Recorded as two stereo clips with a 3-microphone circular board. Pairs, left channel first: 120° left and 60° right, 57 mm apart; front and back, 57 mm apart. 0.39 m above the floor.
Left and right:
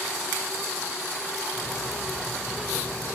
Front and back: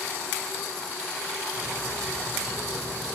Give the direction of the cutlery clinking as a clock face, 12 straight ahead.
7 o'clock.